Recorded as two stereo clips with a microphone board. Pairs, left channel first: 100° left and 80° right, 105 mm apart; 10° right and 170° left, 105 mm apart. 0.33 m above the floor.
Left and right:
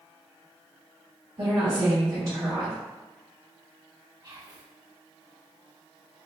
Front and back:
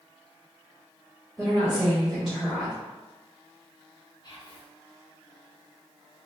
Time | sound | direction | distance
1.4 | a woman speaking | 105° right | 1.5 m
4.2 | whispering | 50° right | 1.6 m